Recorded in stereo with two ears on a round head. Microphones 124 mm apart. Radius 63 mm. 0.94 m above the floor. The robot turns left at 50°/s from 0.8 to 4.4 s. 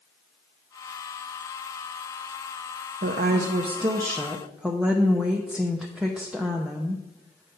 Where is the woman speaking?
100° right, 0.6 m; by 7.6 s 170° right, 0.6 m.